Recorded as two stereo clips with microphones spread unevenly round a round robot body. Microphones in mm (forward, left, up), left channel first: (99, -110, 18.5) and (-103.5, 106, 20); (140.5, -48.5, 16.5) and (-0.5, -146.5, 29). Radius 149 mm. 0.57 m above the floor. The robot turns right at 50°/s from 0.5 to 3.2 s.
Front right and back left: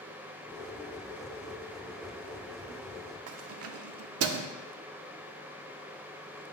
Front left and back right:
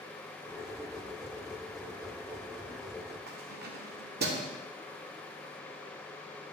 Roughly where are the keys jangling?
Behind.